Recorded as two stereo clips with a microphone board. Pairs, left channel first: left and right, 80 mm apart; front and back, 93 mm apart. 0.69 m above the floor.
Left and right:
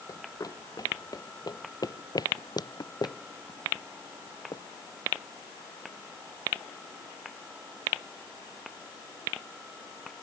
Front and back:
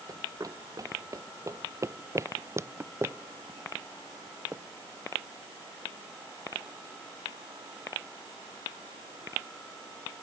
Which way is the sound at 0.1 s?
130° left.